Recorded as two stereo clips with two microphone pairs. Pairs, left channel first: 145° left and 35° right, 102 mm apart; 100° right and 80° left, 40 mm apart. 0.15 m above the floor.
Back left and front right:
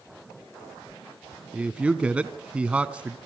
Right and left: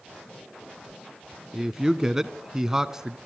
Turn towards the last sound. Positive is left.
turn(degrees=25)